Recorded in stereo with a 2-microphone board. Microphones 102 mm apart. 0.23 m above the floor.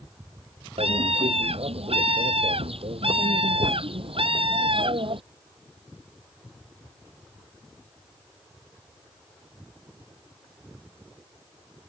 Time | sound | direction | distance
0.8 | a scream | 75° right (ahead or behind) | ?